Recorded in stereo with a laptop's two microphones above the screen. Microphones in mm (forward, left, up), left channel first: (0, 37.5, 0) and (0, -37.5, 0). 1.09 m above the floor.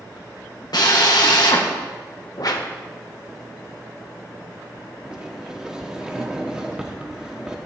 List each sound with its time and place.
0.7 s a drill: 70° left (ahead or behind), 1.5 m
2.4 s a whoosh: 60° left (ahead or behind), 0.9 m
5.0 s a sliding door: 10° right (ahead or behind), 0.8 m